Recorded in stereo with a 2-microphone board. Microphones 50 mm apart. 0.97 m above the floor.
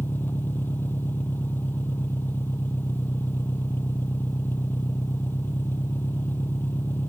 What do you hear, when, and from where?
0.0 s an engine running: 40° left (ahead or behind)